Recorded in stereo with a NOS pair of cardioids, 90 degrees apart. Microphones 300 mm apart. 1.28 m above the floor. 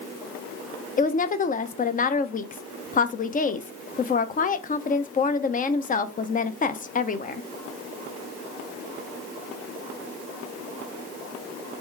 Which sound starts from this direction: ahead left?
A woman speaking, at 1.0 s.